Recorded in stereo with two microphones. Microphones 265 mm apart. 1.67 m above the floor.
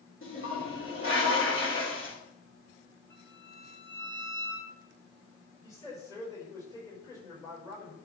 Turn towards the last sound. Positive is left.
turn(degrees=10)  # may be behind; listen again after turning